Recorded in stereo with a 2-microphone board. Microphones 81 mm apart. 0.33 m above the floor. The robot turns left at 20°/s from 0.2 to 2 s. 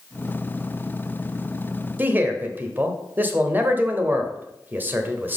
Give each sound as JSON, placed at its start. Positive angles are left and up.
{"t": 2.0, "sound": "a man speaking", "side_deg": -25, "distance_m": 0.9}